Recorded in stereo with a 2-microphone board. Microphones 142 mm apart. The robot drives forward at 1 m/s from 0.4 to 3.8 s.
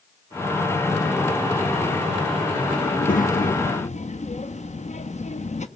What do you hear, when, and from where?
2.8 s a child speaking: 55° left (ahead or behind), 1.0 m